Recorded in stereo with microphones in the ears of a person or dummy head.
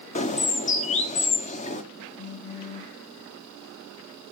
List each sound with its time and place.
0.1 s a bird: 35° left (ahead or behind), 0.9 m
2.2 s a phone buzzing: 35° left (ahead or behind), 0.9 m